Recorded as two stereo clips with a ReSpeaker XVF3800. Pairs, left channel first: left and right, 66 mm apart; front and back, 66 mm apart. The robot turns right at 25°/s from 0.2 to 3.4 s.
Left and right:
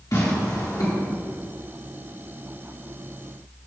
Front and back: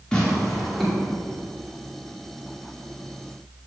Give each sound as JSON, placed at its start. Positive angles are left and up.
{"t": 0.1, "sound": "tearing paper", "azimuth_deg": 75, "distance_m": 1.9}